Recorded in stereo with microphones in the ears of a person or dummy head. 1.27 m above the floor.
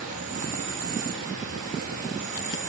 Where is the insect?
45° right (ahead or behind), 4 m.